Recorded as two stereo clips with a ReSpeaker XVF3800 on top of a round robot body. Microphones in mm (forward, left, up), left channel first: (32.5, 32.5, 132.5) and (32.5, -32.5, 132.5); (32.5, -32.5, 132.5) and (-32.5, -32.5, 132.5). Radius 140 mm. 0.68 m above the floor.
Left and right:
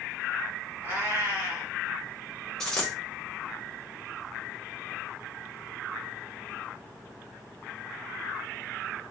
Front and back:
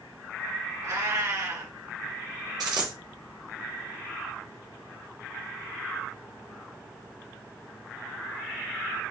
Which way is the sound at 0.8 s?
145° right.